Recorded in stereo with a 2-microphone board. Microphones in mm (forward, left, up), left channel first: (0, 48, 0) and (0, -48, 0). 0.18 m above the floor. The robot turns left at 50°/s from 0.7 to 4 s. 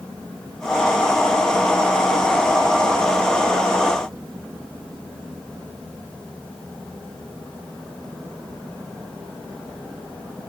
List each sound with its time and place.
Only background noise.